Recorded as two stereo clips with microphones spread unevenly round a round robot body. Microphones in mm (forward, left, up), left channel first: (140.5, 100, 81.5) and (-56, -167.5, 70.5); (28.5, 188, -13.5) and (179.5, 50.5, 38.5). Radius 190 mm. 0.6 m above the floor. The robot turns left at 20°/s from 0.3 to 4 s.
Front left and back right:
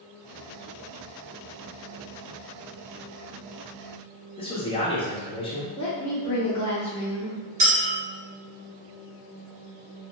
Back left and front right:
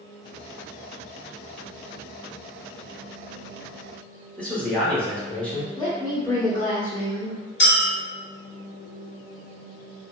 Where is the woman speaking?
110° left, 0.6 m.